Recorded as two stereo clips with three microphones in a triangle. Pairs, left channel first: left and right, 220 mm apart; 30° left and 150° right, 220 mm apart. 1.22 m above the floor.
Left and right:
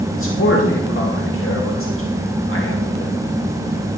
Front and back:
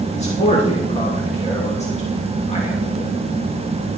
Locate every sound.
0.1 s a man speaking: 85° left, 2.5 m